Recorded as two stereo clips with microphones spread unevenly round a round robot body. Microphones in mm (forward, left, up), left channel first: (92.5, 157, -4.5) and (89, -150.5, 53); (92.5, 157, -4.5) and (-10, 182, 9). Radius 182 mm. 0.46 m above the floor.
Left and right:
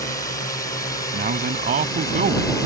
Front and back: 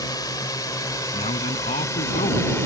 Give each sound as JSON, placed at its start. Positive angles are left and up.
{"t": 0.0, "sound": "a drone", "azimuth_deg": 25}
{"t": 1.1, "sound": "a man speaking", "azimuth_deg": -30}